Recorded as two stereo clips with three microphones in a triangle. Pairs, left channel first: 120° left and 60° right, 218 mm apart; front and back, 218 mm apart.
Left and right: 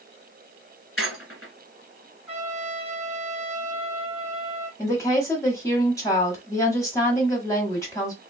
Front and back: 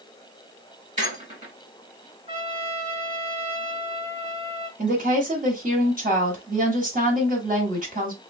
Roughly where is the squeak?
Behind left.